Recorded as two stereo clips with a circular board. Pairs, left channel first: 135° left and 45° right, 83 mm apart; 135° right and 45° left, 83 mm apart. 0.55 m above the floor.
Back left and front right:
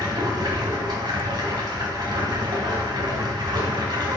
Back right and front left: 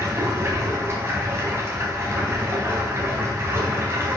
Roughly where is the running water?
Ahead.